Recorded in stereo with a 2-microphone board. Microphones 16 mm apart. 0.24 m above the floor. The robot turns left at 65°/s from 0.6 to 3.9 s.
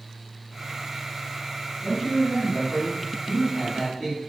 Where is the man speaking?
Centre (ahead or behind), 1.4 m; by 4.2 s 15° left (ahead or behind), 1.4 m.